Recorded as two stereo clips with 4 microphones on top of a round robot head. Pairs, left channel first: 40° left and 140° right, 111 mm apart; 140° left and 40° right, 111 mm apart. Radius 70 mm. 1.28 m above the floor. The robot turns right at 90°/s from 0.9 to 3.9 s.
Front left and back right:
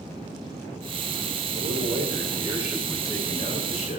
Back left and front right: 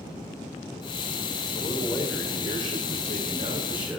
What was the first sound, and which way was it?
A man speaking, 160° right.